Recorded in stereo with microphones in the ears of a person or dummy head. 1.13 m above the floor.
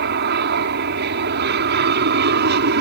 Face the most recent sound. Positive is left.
turn(degrees=-55)  # may be behind; listen again after turning